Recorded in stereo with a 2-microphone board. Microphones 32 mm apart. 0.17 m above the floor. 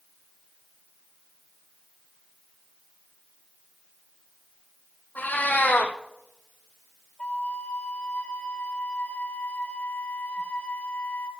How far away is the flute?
About 0.9 m.